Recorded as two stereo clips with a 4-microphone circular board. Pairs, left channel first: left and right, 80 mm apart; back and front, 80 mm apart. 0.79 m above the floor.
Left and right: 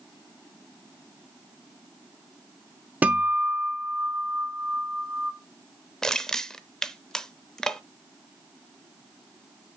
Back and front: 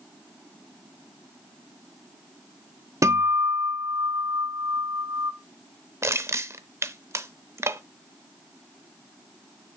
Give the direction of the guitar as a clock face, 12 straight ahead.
1 o'clock.